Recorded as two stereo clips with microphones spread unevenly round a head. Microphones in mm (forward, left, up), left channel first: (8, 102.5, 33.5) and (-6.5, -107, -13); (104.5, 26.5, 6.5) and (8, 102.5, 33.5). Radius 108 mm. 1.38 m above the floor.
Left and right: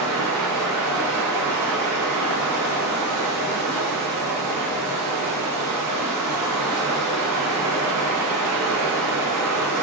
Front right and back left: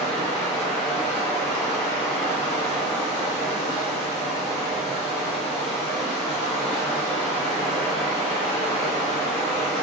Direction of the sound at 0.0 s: 95° right.